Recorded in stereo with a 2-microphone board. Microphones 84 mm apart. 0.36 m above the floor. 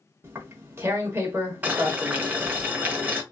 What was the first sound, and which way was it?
Tearing paper, 30° right (ahead or behind).